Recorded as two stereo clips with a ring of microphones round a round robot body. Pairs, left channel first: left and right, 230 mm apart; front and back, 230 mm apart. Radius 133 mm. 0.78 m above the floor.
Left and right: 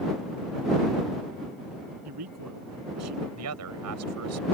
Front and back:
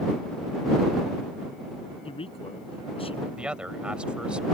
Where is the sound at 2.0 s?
65° right.